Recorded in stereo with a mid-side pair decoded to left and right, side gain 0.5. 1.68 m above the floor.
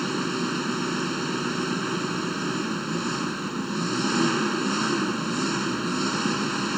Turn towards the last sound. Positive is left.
turn(degrees=-5)